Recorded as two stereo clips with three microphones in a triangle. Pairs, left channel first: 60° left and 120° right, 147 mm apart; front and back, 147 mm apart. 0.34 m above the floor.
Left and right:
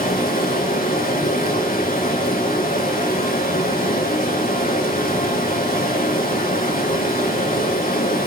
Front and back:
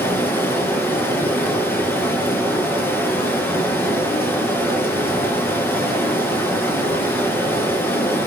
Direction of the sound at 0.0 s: 75° left.